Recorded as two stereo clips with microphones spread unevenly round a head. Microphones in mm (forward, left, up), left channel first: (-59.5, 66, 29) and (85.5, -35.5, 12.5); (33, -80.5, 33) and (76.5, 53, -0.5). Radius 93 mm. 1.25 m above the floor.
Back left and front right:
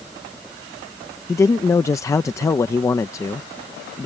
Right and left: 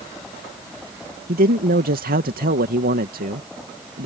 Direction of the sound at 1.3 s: 70° left.